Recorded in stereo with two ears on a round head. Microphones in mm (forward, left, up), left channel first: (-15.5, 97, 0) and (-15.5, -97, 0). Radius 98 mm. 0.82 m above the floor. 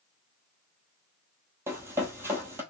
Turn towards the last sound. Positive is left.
turn(degrees=-10)  # may be behind; listen again after turning